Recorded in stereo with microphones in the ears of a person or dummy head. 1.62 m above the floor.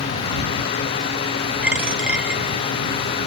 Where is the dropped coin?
5° right (ahead or behind).